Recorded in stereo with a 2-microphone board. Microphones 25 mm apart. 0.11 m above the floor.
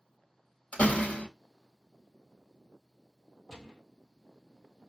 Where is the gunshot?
10° left (ahead or behind), 0.9 m.